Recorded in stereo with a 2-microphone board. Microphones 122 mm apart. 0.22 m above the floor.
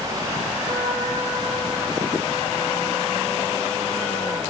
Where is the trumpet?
80° right, 7 m.